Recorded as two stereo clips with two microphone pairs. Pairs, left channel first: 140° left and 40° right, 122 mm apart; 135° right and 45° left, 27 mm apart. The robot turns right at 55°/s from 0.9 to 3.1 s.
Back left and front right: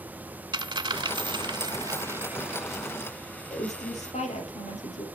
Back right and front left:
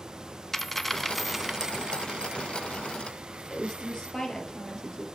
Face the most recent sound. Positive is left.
turn(degrees=155)